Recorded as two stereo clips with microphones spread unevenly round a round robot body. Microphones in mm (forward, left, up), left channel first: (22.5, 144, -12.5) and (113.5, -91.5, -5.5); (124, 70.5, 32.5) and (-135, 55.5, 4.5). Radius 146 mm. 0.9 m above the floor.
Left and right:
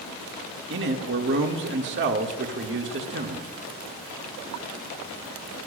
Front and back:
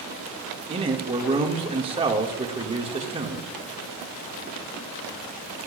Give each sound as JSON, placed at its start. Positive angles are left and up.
{"t": 0.7, "sound": "a man speaking", "azimuth_deg": -115, "distance_m": 1.4}